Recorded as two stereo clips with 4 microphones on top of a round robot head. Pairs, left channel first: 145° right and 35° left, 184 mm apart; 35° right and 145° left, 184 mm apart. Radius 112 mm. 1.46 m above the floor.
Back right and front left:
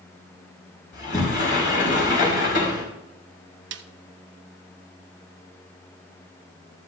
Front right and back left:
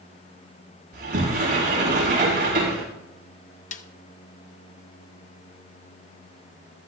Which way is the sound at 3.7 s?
15° left.